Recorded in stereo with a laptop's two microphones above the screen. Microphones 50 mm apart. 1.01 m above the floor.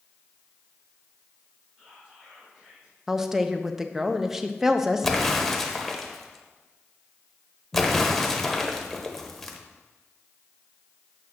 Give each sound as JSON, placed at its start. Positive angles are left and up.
{"t": 1.8, "sound": "whispering", "side_deg": -25, "distance_m": 3.0}
{"t": 3.1, "sound": "a woman speaking", "side_deg": -10, "distance_m": 0.7}
{"t": 5.0, "sound": "an explosion", "side_deg": 5, "distance_m": 0.9}